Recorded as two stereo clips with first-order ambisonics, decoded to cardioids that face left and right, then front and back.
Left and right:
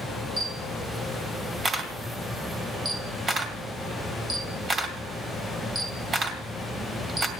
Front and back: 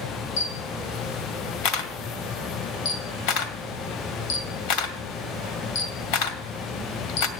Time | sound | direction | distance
0.4 | a camera shutter | 15° right | 2 m